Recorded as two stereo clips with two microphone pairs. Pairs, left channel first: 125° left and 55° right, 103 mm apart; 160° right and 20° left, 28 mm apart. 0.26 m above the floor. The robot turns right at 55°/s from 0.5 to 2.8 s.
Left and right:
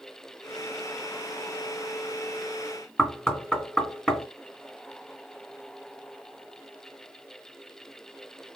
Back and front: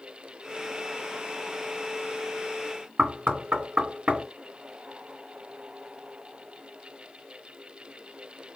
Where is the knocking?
40° left, 3 m.